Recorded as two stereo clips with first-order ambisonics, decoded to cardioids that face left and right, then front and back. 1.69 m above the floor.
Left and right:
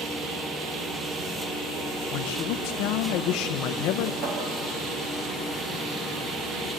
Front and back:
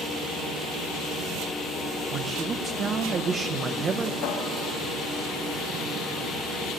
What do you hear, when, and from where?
2.1 s a man speaking: 115° left, 1.4 m
4.2 s a cupboard door: 40° right, 5.5 m